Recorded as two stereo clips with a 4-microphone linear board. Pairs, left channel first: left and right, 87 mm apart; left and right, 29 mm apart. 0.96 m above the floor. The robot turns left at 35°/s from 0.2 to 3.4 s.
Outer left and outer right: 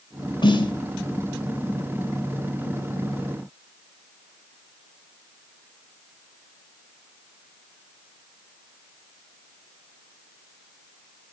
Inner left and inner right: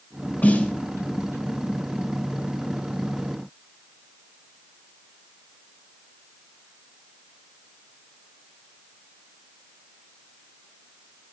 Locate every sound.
0.4 s a snare drum: 65° left (ahead or behind), 2.5 m; by 0.7 s 70° left (ahead or behind), 2.5 m